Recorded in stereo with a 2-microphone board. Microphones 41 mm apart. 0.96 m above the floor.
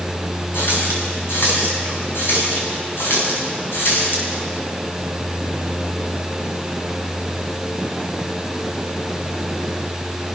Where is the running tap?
70° left (ahead or behind), 6 m.